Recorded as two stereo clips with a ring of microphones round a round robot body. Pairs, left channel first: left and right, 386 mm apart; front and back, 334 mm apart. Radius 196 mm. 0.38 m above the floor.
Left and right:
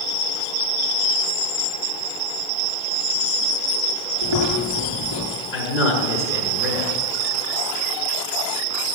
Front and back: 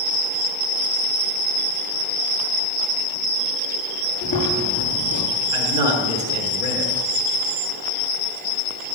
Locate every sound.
4.2 s chewing: 70° right, 6.5 m
5.5 s a man speaking: 175° right, 5.5 m